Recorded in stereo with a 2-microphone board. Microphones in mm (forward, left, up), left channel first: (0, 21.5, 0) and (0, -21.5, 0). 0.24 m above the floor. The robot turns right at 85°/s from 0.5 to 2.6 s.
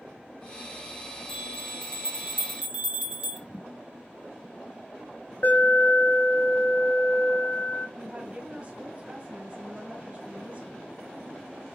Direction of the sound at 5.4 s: 45° left (ahead or behind).